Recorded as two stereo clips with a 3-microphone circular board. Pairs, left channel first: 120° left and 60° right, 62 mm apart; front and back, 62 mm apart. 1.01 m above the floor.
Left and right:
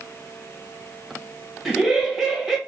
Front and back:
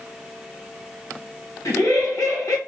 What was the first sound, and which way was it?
Laughter, 25° left.